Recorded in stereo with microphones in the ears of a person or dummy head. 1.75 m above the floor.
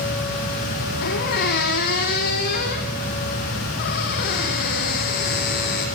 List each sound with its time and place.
1.0 s a squeak: 50° left (ahead or behind), 3.5 m